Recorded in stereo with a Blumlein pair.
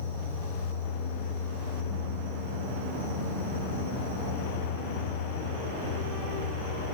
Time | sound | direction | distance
0.0 | an insect | 70° left | 1.6 m